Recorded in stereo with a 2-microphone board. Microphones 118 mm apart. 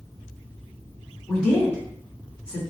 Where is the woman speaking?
10° left (ahead or behind), 1.2 m.